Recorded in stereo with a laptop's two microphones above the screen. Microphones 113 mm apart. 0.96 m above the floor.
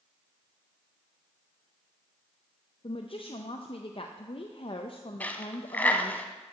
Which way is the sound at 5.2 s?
15° left (ahead or behind).